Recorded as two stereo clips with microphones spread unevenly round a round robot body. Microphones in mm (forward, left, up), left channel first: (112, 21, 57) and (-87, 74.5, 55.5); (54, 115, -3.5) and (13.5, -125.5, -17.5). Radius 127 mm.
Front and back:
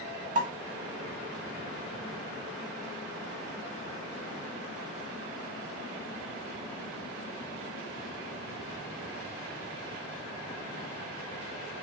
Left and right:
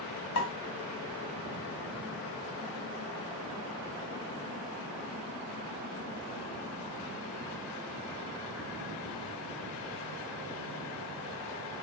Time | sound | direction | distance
0.3 | a pop | 120° left | 1.4 m